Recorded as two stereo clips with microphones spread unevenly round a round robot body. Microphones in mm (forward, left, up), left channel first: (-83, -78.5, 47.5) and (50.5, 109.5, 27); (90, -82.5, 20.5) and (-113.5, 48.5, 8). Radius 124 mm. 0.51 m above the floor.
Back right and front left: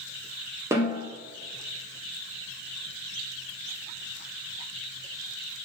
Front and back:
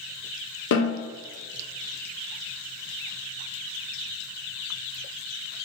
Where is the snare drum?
15° right, 0.9 m.